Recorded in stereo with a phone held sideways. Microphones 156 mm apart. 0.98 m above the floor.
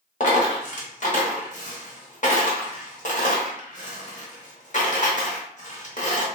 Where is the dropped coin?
50° left (ahead or behind), 0.9 m.